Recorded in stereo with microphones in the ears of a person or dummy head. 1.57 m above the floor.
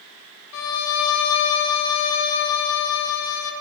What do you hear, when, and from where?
0.5 s a violin: 85° left, 0.6 m